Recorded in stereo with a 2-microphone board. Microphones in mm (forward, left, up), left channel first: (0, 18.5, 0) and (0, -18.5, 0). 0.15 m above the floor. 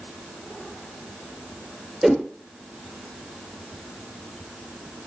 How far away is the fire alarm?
No fire alarm in this recording.